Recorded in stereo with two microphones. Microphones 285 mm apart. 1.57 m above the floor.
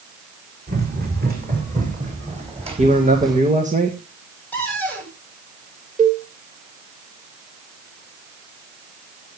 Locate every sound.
0.7 s running footsteps: 35° right (ahead or behind), 6 m; by 3.4 s 10° right (ahead or behind), 4 m
2.8 s a man speaking: 25° right (ahead or behind), 1.9 m
4.5 s a cupboard door: 5° left (ahead or behind), 8.5 m
6.0 s a cowbell: 25° right (ahead or behind), 3.5 m